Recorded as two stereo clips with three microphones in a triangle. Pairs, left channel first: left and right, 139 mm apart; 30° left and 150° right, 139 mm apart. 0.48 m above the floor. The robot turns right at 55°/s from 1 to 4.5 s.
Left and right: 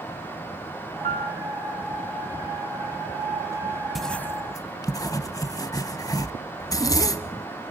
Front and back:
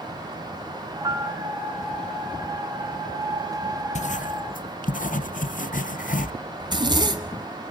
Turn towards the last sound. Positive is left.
turn(degrees=155)